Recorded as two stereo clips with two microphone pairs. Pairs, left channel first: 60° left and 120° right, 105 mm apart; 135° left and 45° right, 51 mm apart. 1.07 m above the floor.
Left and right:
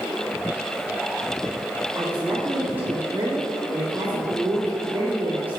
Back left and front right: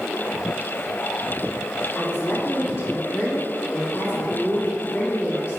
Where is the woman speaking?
170° left, 2 m.